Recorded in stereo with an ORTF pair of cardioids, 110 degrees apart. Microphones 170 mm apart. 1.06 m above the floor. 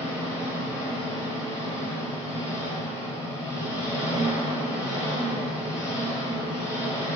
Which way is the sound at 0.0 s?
15° left.